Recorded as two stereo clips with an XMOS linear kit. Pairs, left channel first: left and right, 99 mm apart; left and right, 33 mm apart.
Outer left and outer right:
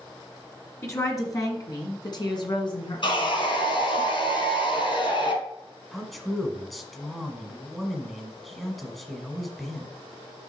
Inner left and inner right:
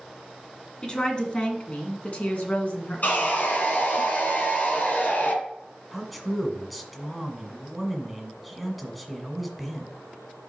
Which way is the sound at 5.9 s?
Centre (ahead or behind).